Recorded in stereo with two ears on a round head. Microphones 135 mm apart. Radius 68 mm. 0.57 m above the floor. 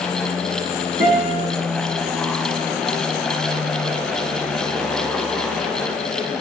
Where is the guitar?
40° right (ahead or behind), 4.5 m.